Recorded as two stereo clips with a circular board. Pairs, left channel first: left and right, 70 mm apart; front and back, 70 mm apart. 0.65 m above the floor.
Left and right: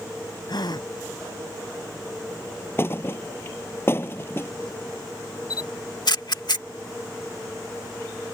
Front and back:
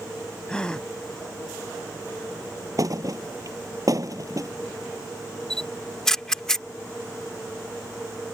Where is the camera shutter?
80° left.